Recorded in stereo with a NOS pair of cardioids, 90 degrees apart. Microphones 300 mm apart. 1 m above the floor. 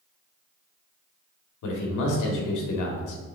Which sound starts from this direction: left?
A man speaking, at 1.6 s.